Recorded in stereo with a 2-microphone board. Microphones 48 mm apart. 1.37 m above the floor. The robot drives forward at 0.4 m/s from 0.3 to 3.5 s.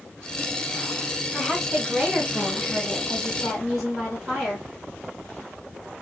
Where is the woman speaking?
Centre (ahead or behind), 1.2 m.